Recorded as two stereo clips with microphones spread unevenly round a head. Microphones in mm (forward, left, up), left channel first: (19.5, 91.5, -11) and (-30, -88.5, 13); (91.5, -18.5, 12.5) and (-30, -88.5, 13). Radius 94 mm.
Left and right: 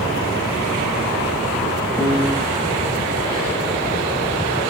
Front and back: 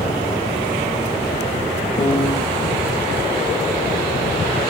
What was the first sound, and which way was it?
A piano, 5° left.